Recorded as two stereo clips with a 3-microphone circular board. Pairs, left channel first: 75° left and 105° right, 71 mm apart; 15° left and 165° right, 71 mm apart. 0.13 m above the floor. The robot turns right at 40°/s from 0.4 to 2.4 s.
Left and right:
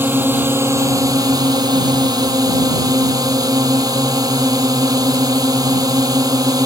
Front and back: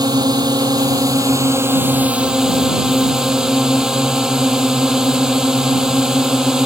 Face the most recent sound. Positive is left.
turn(degrees=-85)